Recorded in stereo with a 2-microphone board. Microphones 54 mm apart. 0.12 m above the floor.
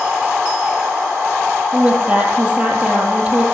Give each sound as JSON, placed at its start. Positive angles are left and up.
{"t": 1.7, "sound": "a woman speaking", "side_deg": -20, "distance_m": 3.5}